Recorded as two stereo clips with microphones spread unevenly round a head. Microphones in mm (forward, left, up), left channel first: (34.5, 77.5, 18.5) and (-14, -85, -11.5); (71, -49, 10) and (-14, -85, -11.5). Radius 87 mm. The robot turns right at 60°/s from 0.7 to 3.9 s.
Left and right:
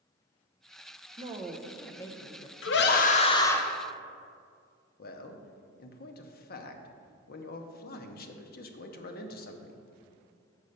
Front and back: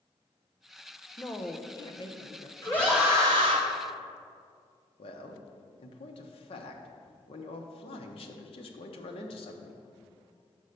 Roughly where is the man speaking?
Ahead left.